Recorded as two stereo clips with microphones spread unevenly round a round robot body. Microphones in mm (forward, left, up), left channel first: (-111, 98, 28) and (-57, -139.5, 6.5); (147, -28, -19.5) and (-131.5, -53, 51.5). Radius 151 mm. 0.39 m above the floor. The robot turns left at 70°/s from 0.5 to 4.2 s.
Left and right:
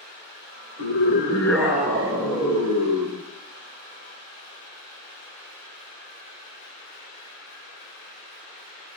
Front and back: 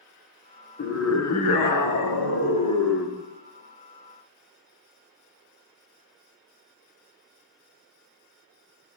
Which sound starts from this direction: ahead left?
A scream, at 0.8 s.